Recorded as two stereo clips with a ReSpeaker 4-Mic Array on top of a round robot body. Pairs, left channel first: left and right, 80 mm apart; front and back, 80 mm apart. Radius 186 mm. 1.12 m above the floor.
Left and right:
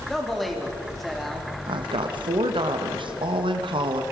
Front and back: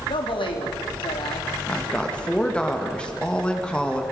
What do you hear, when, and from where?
0.1 s a man speaking: straight ahead, 3.5 m
1.7 s a woman speaking: 80° right, 1.6 m